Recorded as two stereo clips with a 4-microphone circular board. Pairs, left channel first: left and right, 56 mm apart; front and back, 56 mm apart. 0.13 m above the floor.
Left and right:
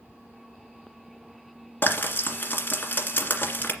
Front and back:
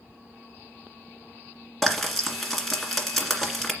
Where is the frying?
85° left, 1.9 m.